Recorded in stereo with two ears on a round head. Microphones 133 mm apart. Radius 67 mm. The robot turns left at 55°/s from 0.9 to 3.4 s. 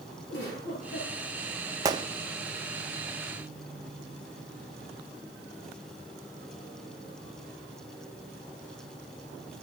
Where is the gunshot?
20° right (ahead or behind), 0.5 m; by 2.1 s 35° right (ahead or behind), 0.5 m.